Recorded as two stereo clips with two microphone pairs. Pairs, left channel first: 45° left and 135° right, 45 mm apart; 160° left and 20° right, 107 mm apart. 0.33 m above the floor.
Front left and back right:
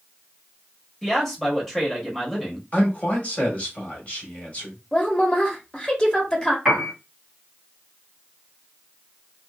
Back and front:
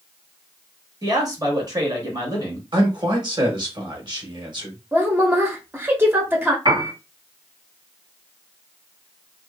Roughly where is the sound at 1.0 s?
Ahead right.